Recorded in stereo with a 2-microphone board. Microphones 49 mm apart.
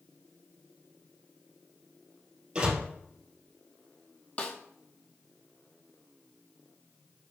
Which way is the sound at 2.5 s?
20° right (ahead or behind).